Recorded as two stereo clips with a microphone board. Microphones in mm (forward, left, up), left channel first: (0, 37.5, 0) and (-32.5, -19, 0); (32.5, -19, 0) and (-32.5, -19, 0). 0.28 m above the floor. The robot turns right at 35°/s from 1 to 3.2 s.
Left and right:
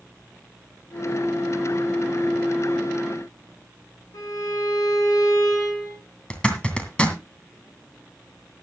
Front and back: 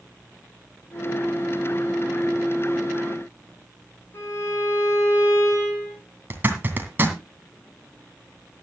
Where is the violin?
45° left, 6.5 m.